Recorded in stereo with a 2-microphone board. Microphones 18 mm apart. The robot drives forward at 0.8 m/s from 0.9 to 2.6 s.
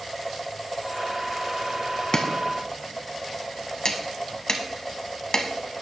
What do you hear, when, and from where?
2.1 s chopping: 35° left (ahead or behind), 1.1 m; by 5.5 s 45° left (ahead or behind), 0.9 m